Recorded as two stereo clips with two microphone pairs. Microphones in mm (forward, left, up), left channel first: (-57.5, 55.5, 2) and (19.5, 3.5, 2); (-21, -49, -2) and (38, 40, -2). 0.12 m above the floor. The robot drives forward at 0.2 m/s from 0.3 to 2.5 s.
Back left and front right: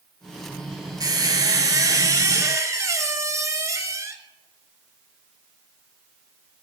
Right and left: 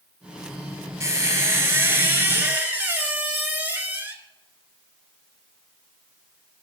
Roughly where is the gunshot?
I don't hear a gunshot.